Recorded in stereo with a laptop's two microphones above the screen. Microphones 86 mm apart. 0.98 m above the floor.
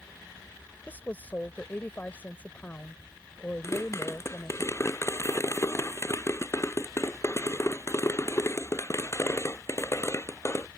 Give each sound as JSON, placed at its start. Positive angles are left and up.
{"t": 0.9, "sound": "a woman speaking", "side_deg": 20}
{"t": 3.6, "sound": "a pop", "side_deg": 35}